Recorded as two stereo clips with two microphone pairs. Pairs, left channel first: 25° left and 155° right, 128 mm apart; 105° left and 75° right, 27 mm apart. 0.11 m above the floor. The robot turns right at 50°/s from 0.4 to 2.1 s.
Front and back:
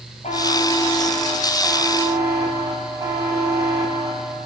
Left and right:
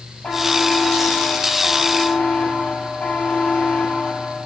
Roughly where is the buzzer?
Ahead left.